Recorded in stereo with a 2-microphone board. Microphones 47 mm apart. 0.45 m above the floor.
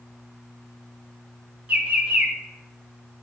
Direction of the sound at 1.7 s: 40° right (ahead or behind).